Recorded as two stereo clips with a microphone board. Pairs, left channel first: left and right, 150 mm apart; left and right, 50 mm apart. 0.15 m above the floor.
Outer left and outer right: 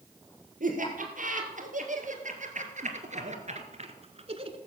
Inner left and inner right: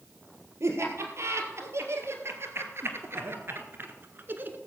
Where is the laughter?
65° right (ahead or behind), 3.5 m; by 4.6 s 40° right (ahead or behind), 1.5 m.